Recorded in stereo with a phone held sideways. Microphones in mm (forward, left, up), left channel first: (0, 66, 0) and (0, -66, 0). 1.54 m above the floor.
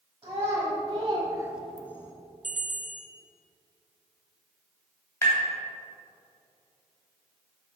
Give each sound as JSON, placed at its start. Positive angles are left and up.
{"t": 0.2, "sound": "a child speaking", "side_deg": -35, "distance_m": 1.7}
{"t": 2.4, "sound": "a bell", "side_deg": -70, "distance_m": 0.6}
{"t": 5.2, "sound": "tapping", "side_deg": 20, "distance_m": 2.5}